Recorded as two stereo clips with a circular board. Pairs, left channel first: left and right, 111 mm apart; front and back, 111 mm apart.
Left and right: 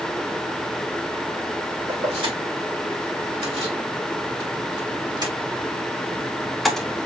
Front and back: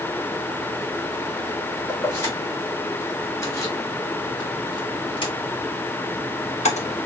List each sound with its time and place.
1.9 s keys jangling: 65° right, 4 m; by 7.0 s 10° left, 1.2 m